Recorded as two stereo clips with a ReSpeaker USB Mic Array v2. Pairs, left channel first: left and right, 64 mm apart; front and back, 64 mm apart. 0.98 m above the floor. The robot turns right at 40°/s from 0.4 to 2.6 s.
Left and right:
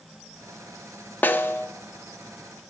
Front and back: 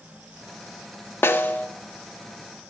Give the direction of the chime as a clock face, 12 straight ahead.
I don't hear a chime.